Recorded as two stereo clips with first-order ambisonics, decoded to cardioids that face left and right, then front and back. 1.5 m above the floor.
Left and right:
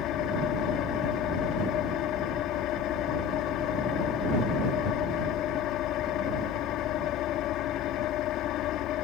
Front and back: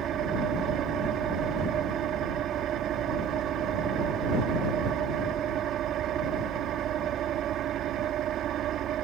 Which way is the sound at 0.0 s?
130° left.